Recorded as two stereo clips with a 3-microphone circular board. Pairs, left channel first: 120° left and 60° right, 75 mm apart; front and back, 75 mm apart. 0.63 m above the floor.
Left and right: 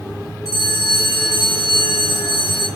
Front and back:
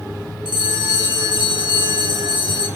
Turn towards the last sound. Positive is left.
turn(degrees=160)